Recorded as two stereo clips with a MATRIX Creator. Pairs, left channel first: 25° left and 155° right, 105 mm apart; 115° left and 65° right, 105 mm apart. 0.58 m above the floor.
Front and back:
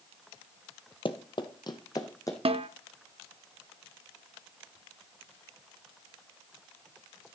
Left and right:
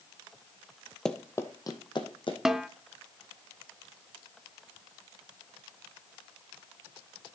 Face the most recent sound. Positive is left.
turn(degrees=-150)